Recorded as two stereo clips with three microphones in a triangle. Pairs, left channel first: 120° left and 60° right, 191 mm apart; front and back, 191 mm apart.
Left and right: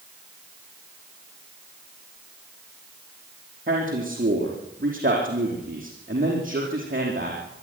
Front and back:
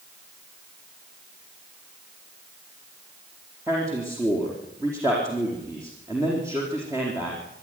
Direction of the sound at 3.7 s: 105° right.